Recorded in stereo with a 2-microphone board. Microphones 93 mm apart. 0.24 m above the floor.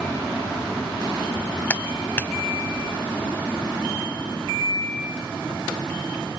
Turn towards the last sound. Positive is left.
turn(degrees=20)  # may be behind; listen again after turning